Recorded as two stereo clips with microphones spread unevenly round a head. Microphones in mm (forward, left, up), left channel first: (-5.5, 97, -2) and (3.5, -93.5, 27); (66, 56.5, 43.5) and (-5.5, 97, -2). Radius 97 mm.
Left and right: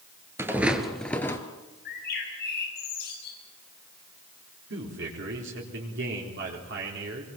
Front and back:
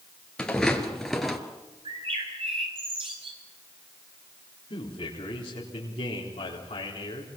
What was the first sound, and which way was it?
Footsteps, 30° right.